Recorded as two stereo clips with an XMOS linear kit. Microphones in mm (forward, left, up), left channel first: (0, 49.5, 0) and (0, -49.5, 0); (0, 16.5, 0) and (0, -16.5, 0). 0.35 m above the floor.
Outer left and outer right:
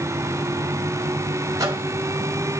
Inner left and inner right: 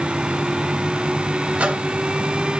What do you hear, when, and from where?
1.6 s a microwave: 35° right (ahead or behind), 2.0 m